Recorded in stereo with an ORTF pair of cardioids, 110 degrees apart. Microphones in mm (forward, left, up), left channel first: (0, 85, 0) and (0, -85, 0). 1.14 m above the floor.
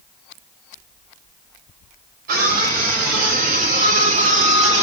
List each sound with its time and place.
2.3 s a scream: 65° right, 4.5 m; by 4.8 s 40° right, 2.5 m